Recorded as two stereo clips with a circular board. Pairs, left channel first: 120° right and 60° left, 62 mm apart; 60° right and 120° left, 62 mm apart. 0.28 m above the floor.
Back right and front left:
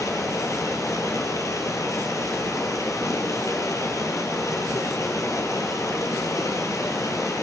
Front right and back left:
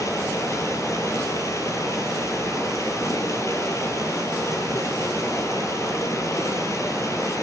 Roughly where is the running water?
Right.